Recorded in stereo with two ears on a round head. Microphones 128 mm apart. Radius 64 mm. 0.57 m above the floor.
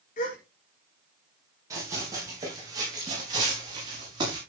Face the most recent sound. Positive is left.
turn(degrees=-35)  # may be behind; listen again after turning